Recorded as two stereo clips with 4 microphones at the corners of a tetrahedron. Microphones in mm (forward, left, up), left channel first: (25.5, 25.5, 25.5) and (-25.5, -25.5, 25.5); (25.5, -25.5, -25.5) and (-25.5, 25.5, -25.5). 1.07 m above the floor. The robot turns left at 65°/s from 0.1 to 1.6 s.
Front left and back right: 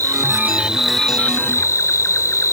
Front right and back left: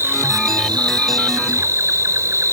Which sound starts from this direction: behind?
An insect, at 0.0 s.